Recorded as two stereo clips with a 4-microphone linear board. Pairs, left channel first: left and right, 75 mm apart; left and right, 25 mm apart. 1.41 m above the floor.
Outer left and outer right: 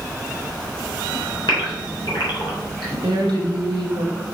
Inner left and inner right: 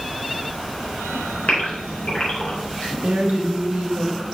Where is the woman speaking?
80° right, 2 m.